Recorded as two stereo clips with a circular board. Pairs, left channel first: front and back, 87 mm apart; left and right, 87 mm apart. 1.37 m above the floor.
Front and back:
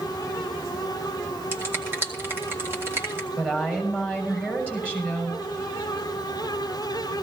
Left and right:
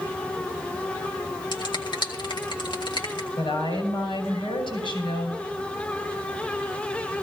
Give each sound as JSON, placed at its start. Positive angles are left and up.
{"t": 1.5, "sound": "a finger snap", "azimuth_deg": 115, "distance_m": 2.0}
{"t": 3.4, "sound": "a woman speaking", "azimuth_deg": 110, "distance_m": 6.5}